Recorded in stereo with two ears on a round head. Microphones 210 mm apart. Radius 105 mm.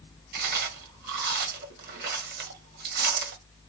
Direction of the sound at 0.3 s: 40° right (ahead or behind).